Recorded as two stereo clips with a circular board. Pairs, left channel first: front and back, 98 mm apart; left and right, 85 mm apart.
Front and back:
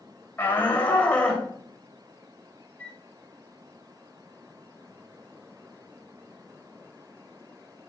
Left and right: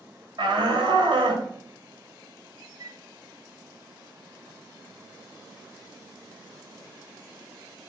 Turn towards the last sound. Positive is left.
turn(degrees=-70)